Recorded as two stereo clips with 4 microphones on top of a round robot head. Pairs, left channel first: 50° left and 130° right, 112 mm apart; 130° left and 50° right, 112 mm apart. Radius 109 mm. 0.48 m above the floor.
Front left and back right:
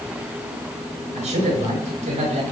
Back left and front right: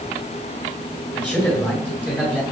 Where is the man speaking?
155° right, 9.5 m.